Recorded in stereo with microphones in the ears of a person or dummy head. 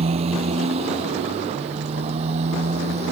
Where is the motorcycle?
35° right (ahead or behind).